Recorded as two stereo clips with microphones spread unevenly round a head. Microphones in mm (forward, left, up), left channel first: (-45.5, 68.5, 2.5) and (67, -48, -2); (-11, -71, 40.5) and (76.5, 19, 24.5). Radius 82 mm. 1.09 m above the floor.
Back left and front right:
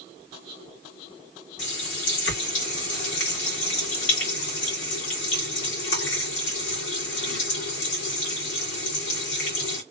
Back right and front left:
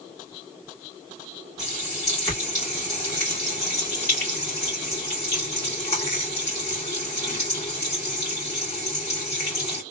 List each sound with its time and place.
1.6 s a running tap: 155° left, 2 m